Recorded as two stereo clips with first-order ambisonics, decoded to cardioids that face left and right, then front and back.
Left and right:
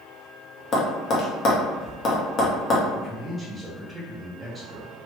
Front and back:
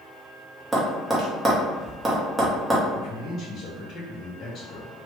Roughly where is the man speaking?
Ahead.